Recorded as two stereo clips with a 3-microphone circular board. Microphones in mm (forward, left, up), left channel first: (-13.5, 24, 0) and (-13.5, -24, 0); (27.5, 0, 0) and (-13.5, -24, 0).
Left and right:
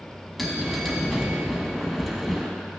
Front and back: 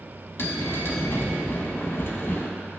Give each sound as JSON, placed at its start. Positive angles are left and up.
{"t": 0.4, "sound": "a bell", "azimuth_deg": 0, "distance_m": 1.0}